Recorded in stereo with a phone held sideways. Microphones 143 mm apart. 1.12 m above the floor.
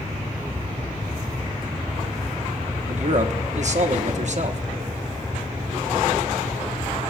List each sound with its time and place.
2.9 s a man speaking: 55° right (ahead or behind), 1.2 m